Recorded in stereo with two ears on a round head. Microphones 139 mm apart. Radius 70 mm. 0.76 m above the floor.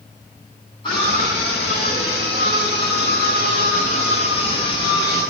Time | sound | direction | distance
0.8 | a scream | 30° left (ahead or behind) | 7.5 m